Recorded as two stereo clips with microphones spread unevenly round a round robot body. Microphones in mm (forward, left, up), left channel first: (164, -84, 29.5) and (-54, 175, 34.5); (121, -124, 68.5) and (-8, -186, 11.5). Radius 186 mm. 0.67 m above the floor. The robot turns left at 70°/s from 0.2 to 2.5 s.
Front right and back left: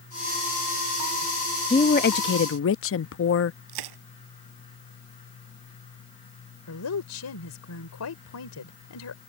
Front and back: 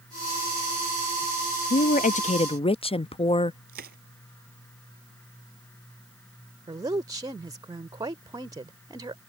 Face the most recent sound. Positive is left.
turn(degrees=-100)